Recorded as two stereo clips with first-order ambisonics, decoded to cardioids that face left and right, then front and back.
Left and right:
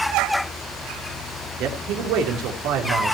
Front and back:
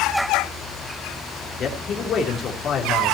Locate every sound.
1.6 s a man speaking: 60° right, 3 m